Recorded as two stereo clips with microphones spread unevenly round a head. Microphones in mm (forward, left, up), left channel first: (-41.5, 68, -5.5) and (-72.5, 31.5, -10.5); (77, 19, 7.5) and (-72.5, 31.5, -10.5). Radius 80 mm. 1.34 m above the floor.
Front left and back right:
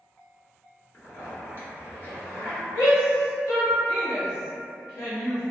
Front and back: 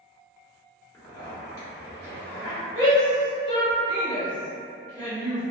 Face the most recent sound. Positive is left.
turn(degrees=60)